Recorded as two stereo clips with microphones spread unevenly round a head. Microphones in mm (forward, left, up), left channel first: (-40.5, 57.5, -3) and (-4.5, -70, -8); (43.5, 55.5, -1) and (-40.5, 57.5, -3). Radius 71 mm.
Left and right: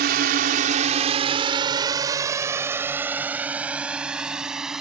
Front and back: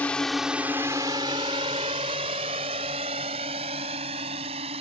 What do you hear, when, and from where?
0.0 s a drone: 80° right; by 4.8 s 160° right